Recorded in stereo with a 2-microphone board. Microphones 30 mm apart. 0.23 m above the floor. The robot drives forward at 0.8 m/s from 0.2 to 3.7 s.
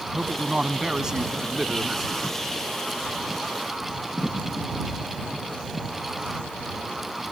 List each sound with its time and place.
0.1 s a man speaking: 30° right (ahead or behind); by 2.1 s 15° right (ahead or behind)